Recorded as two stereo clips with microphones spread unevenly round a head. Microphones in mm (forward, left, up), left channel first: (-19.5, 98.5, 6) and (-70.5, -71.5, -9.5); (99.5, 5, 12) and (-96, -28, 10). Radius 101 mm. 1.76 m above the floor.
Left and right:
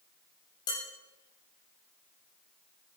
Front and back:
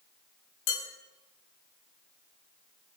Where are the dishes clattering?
5° left, 4.5 m.